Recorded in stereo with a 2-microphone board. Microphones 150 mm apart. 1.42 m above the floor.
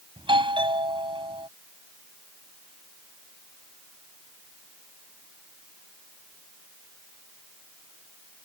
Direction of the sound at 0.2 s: 35° right (ahead or behind).